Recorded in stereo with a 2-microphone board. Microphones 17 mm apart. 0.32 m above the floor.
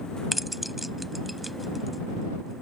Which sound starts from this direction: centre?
Keys jangling, at 0.3 s.